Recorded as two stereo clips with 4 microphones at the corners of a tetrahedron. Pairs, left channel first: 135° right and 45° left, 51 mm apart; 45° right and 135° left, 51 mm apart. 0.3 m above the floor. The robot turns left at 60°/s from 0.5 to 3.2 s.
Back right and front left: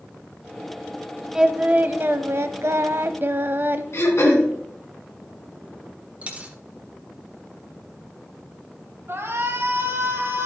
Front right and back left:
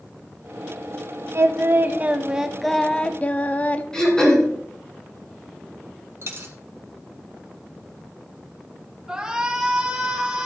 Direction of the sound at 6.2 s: 105° left.